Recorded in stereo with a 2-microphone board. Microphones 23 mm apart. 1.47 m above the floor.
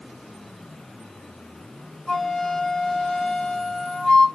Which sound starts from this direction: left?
A flute, at 2.1 s.